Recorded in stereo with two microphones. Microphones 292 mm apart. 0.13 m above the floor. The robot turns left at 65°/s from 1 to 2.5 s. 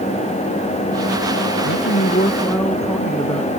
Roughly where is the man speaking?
Ahead left.